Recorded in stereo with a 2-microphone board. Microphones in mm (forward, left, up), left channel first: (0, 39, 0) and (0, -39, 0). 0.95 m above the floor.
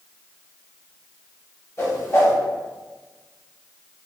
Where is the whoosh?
40° left (ahead or behind), 1.5 m.